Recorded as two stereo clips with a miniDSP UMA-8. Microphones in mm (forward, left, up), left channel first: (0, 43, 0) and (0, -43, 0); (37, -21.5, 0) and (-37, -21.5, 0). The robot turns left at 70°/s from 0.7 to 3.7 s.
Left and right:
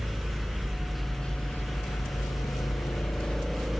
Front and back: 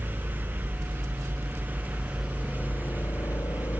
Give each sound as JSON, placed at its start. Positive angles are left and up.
{"t": 0.0, "sound": "a helicopter", "azimuth_deg": -160}